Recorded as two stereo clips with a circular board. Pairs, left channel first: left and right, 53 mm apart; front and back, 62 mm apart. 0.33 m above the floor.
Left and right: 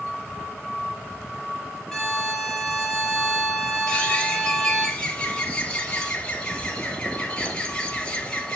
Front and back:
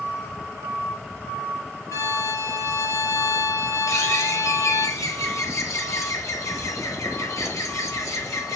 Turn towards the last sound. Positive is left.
turn(degrees=20)